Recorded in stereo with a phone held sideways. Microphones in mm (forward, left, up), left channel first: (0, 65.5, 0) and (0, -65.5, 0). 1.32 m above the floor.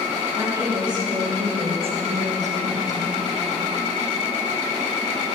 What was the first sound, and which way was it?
A woman speaking, 30° right (ahead or behind).